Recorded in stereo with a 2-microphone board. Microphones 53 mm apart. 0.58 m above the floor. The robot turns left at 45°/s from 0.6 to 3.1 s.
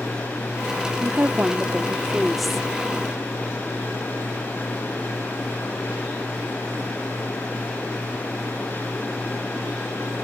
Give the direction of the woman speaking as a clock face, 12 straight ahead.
4 o'clock.